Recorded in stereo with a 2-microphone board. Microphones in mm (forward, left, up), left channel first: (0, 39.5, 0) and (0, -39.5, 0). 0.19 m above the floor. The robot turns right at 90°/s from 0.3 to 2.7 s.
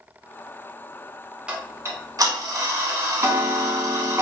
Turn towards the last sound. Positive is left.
turn(degrees=-55)